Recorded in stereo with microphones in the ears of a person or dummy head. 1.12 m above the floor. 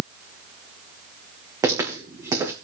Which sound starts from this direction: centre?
Footsteps, at 1.6 s.